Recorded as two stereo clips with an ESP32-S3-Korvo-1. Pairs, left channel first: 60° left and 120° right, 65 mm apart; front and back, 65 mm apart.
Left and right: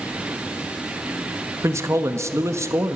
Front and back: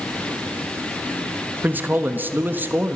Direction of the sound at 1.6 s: 135° right.